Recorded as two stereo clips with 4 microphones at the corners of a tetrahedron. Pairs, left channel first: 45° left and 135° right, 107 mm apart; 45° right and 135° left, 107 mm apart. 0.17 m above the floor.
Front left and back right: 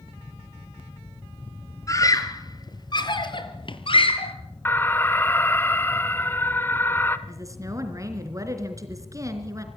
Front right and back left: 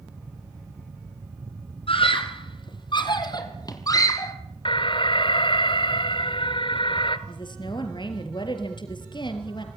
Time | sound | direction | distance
1.9 | a scream | 15° right | 3.5 m
4.7 | an alarm | 25° right | 1.4 m
7.3 | a woman speaking | 80° right | 3.5 m